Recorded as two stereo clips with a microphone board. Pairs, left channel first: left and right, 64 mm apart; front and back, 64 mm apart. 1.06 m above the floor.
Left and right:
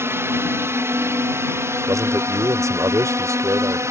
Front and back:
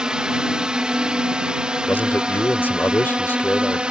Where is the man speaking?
60° right.